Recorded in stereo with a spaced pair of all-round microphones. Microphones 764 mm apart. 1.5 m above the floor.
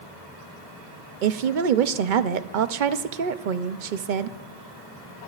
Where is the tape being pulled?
No tape being pulled in this recording.